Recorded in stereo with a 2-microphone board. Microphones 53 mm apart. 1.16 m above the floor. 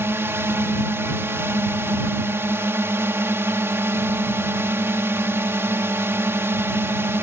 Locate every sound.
0.0 s a drone: 50° right (ahead or behind)